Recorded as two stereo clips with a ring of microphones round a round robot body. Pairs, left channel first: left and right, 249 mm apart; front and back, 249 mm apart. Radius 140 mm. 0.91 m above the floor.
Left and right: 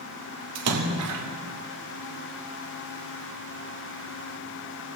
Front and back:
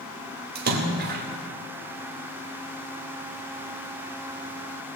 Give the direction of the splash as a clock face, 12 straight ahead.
4 o'clock.